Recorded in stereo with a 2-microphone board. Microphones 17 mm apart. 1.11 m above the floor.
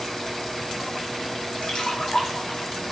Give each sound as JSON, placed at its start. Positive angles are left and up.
{"t": 1.6, "sound": "a splash", "side_deg": 75, "distance_m": 0.5}